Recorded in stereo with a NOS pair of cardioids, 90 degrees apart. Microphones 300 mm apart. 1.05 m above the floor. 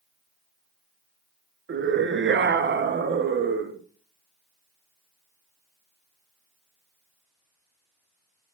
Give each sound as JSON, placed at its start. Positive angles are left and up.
{"t": 1.7, "sound": "a scream", "azimuth_deg": -40, "distance_m": 1.1}